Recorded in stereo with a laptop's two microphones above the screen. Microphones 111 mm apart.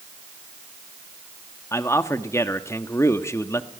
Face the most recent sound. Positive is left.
turn(degrees=25)  # may be behind; listen again after turning